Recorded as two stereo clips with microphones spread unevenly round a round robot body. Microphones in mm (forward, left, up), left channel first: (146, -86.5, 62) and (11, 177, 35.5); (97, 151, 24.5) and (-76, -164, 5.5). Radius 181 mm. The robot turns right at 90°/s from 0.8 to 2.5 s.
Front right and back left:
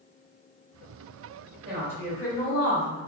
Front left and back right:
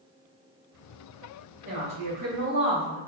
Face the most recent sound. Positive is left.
turn(degrees=-110)